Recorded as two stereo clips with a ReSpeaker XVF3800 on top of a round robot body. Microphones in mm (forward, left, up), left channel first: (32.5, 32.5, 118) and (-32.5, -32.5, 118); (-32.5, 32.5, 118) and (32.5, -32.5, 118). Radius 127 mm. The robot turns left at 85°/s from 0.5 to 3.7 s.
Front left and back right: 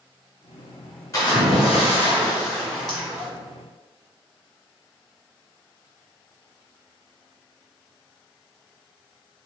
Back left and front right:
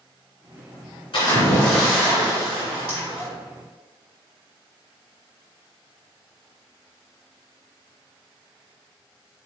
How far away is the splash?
About 1.8 m.